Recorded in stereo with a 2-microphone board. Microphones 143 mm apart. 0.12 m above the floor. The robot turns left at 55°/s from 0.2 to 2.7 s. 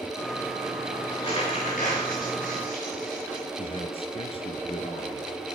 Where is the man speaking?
40° left (ahead or behind), 1.7 m.